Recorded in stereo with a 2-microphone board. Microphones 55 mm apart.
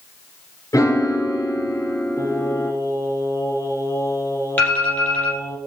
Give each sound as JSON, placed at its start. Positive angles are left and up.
{"t": 0.7, "sound": "a piano", "side_deg": 75, "distance_m": 2.0}
{"t": 2.2, "sound": "singing", "side_deg": 65, "distance_m": 2.0}
{"t": 4.6, "sound": "an alarm", "side_deg": 35, "distance_m": 5.5}